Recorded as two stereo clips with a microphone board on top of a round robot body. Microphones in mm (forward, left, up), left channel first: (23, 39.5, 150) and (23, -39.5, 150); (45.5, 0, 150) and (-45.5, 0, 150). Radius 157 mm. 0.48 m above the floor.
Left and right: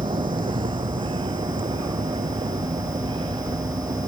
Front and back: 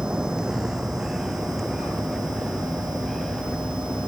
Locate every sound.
0.0 s a vehicle: 100° right; by 4.1 s 85° right